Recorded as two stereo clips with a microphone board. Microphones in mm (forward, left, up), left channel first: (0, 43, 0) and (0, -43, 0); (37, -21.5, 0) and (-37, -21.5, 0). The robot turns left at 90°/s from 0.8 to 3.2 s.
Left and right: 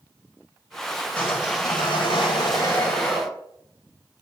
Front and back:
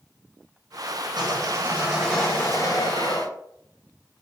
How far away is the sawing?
About 7 m.